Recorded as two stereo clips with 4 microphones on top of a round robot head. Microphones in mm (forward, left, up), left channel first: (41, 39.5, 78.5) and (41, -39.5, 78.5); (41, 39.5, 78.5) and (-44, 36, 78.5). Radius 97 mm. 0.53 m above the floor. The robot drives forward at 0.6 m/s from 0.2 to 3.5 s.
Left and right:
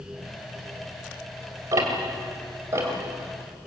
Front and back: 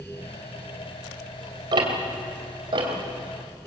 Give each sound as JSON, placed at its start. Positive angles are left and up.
{"t": 1.7, "sound": "ticking", "azimuth_deg": -140, "distance_m": 3.0}